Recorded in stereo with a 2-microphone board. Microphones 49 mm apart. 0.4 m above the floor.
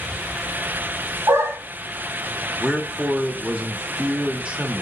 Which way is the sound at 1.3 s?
70° right (ahead or behind).